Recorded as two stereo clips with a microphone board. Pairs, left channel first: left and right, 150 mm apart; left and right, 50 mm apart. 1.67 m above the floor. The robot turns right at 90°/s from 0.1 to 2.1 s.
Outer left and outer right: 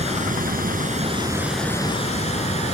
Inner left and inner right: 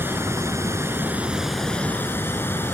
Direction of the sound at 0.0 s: 130° right.